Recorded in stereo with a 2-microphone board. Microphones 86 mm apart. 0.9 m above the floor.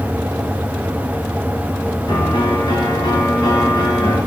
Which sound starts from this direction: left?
A piano, at 2.1 s.